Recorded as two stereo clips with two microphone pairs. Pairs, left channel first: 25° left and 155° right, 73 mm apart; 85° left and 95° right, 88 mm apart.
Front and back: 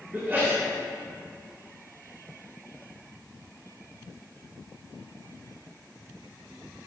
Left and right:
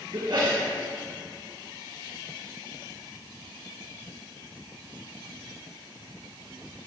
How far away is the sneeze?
About 3 m.